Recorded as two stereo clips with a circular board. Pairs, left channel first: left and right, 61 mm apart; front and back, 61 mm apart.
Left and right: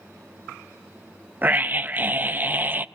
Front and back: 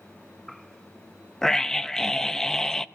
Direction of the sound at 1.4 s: 75° right.